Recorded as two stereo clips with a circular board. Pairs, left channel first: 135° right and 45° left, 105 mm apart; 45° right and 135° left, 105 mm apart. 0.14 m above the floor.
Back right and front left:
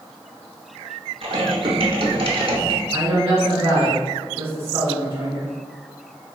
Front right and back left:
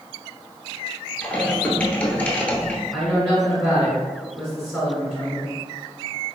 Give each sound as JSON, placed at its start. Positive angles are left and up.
{"t": 1.2, "sound": "typing on a keyboard", "azimuth_deg": 30, "distance_m": 0.7}
{"t": 2.9, "sound": "a woman speaking", "azimuth_deg": 30, "distance_m": 1.5}